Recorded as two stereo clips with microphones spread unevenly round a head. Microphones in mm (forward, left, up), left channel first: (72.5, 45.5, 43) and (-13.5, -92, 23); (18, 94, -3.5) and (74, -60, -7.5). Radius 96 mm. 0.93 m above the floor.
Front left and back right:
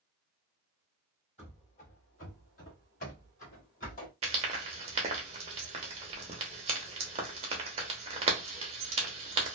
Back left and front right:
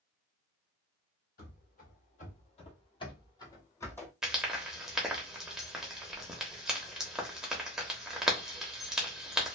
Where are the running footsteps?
105° left, 1.5 m; by 4.1 s 30° left, 1.6 m.